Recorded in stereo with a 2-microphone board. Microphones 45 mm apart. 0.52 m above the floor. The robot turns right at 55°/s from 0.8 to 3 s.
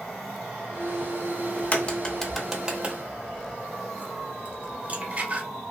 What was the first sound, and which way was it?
A crack, 45° left (ahead or behind).